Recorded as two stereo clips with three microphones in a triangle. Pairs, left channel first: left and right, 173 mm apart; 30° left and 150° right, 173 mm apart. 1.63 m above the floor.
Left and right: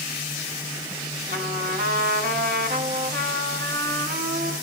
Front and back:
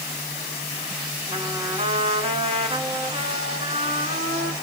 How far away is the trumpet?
About 1.6 m.